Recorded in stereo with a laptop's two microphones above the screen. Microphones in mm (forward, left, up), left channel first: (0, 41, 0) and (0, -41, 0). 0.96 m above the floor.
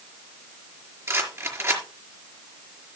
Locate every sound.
1.1 s a rattle: 35° right (ahead or behind), 4.5 m